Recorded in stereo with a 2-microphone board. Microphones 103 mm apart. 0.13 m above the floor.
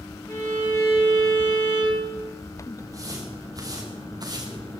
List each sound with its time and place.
0.3 s a violin: 25° left (ahead or behind), 9.5 m
2.8 s footsteps: 35° right (ahead or behind), 7 m; by 4.8 s 45° right (ahead or behind), 5 m